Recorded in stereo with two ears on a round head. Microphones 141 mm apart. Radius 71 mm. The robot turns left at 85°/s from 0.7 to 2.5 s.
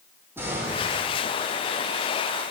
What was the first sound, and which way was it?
An explosion, 165° right.